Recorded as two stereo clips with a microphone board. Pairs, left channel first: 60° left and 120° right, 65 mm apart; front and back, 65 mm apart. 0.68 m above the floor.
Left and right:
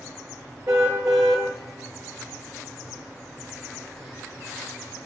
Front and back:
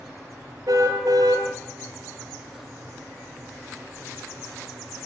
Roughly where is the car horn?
Behind right.